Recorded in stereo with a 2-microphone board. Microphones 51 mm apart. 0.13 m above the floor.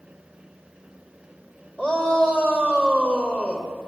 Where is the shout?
15° left (ahead or behind), 4.5 m.